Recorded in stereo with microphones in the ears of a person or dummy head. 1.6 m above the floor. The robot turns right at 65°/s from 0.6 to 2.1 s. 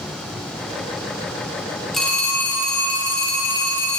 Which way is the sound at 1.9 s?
Centre (ahead or behind).